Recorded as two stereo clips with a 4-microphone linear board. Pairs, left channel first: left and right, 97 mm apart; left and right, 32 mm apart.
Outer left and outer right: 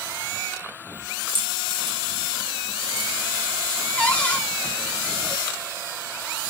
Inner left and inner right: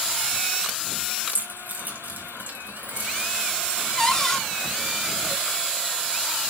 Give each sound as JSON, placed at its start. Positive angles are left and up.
{"t": 1.3, "sound": "keys jangling", "side_deg": -65, "distance_m": 4.0}
{"t": 4.0, "sound": "a cupboard door", "side_deg": 15, "distance_m": 1.7}